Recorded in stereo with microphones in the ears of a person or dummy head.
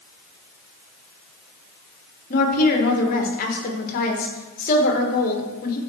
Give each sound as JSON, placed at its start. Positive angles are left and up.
{"t": 2.3, "sound": "a woman speaking", "side_deg": 50, "distance_m": 1.3}